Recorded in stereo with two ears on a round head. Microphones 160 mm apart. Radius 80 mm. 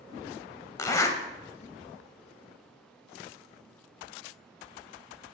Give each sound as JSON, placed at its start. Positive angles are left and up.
{"t": 0.8, "sound": "a zipper", "side_deg": 20, "distance_m": 0.6}